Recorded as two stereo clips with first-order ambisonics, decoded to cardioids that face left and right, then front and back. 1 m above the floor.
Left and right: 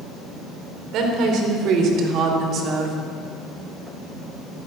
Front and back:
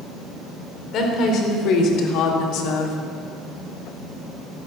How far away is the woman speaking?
About 3.5 m.